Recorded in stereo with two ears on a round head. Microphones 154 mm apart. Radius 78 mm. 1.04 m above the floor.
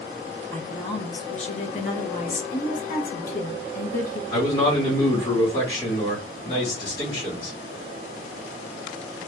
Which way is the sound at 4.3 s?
40° left (ahead or behind).